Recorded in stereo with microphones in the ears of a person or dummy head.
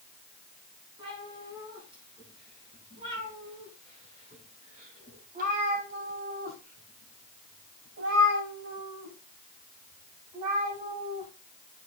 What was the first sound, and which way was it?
A cat meowing, 25° right (ahead or behind).